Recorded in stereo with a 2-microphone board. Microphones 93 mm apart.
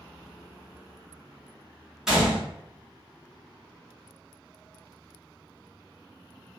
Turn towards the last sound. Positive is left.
turn(degrees=-5)  # may be behind; listen again after turning